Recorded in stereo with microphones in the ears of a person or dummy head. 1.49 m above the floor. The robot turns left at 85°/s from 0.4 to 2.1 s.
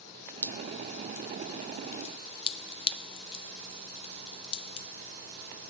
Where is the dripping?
5° left (ahead or behind), 0.8 m; by 4.9 s 30° left (ahead or behind), 0.8 m.